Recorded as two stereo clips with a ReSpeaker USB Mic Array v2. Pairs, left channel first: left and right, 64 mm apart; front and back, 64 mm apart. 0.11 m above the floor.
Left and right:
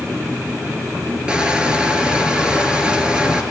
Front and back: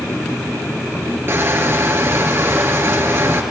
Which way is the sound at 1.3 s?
160° right.